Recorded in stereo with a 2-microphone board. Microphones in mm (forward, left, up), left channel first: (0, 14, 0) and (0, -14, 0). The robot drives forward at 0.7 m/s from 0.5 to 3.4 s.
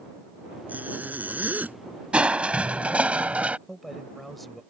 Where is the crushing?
45° right (ahead or behind); by 3.6 s 55° right (ahead or behind).